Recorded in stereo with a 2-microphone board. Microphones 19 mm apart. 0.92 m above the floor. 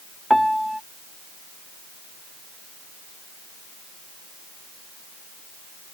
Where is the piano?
10° left (ahead or behind).